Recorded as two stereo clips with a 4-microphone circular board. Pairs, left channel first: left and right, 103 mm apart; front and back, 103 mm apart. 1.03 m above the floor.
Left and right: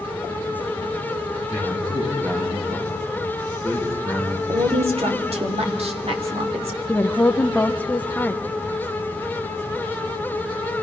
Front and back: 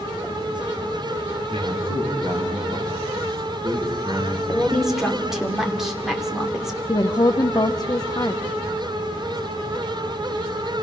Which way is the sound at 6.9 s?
20° left.